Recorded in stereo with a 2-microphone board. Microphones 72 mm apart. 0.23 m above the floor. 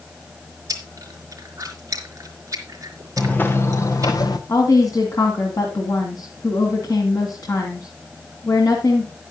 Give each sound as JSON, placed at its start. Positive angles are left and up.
{"t": 0.7, "sound": "chewing", "side_deg": -45, "distance_m": 4.0}
{"t": 3.2, "sound": "footsteps", "side_deg": 20, "distance_m": 1.4}
{"t": 4.5, "sound": "a woman speaking", "side_deg": 55, "distance_m": 2.0}